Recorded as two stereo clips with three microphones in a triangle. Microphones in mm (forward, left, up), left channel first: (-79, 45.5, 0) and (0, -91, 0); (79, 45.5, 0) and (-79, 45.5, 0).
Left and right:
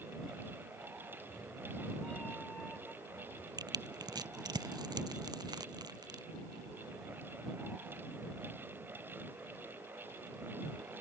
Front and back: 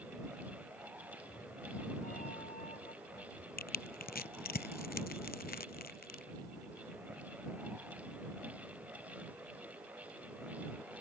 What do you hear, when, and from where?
1.1 s a cat meowing: 35° left; by 3.5 s 40° left
3.6 s crushing: straight ahead